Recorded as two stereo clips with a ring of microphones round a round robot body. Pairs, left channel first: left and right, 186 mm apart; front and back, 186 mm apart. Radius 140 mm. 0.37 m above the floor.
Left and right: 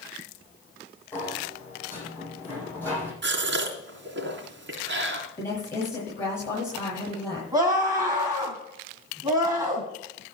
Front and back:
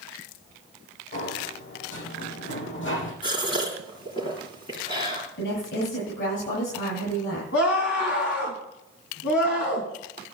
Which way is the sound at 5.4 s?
15° left.